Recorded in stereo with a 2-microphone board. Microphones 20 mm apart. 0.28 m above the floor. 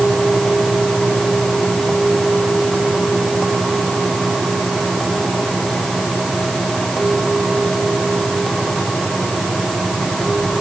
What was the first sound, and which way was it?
Only background noise.